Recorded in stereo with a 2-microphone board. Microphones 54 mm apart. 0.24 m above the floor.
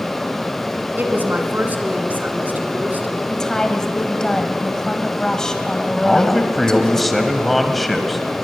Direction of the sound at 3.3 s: 10° left (ahead or behind).